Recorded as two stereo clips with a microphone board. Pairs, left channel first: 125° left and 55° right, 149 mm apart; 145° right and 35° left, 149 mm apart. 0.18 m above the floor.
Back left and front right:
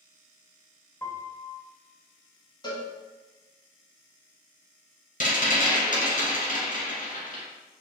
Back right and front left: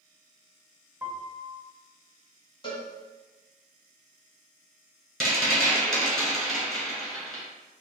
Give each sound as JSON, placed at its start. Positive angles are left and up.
{"t": 1.0, "sound": "a piano", "azimuth_deg": 85, "distance_m": 0.5}
{"t": 2.6, "sound": "a cowbell", "azimuth_deg": 175, "distance_m": 0.9}
{"t": 5.2, "sound": "a rattle", "azimuth_deg": 125, "distance_m": 1.7}